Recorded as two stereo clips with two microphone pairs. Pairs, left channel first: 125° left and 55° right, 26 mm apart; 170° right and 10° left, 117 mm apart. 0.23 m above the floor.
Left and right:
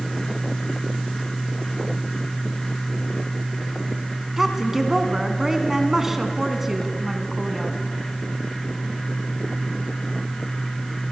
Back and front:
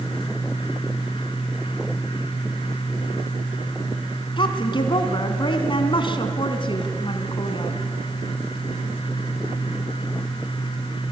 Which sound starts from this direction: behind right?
A woman speaking, at 4.4 s.